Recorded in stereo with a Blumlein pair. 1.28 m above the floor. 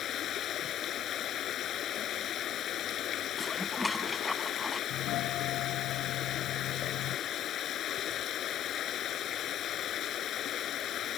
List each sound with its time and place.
0.0 s running water: 30° left
3.4 s dishes clattering: 10° left
4.9 s a doorbell: 40° left